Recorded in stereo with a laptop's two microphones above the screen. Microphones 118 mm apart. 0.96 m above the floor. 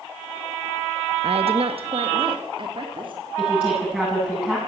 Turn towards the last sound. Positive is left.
turn(degrees=-10)  # may be behind; listen again after turning